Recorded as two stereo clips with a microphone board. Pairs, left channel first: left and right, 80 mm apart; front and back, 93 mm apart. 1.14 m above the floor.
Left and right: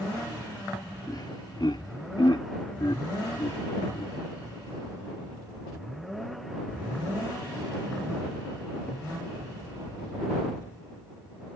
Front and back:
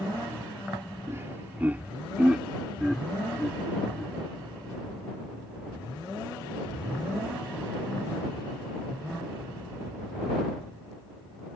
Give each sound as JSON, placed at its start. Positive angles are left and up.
{"t": 1.1, "sound": "laughter", "azimuth_deg": 120}